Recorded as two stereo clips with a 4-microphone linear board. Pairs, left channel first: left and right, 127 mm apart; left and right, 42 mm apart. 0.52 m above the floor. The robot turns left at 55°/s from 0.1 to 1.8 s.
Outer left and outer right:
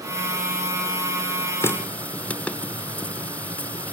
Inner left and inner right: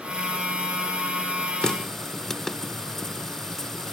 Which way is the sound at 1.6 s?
20° left (ahead or behind).